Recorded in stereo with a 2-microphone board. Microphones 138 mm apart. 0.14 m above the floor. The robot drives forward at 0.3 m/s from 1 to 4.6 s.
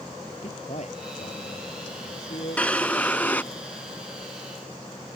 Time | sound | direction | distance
0.4 | a man speaking | 55° left (ahead or behind) | ?
2.6 | a drawer | 10° left (ahead or behind) | ?